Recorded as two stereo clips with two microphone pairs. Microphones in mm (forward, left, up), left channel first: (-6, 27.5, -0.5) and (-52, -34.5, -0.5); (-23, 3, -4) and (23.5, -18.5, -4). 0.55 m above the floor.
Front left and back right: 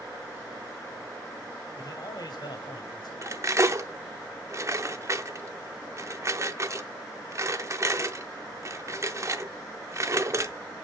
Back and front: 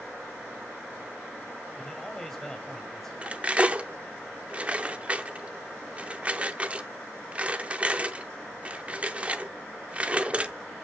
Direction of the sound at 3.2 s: 85° right.